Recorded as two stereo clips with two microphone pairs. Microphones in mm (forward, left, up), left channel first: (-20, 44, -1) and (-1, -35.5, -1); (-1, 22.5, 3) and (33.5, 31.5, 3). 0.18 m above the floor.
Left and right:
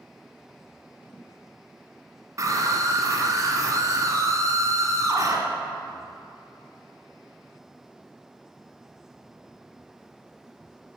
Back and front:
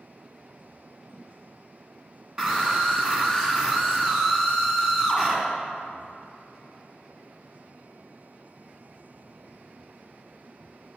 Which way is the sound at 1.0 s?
85° left.